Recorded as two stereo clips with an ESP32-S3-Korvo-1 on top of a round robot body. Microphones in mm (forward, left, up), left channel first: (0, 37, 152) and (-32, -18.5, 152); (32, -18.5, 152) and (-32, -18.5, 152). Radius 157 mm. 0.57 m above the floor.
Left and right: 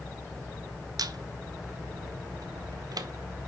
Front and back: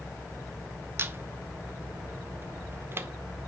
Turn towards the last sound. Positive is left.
turn(degrees=-125)